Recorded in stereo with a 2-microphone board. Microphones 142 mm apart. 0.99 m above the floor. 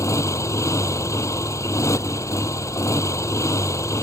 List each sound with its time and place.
0.0 s a motorcycle: 20° left (ahead or behind)